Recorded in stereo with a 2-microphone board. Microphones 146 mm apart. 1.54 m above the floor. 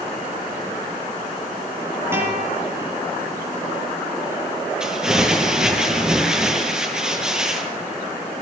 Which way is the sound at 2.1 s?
15° right (ahead or behind).